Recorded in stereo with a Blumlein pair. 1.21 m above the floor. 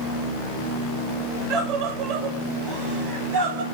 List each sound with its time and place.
1.5 s a scream: 40° right, 5.5 m; by 3.6 s 55° right, 6 m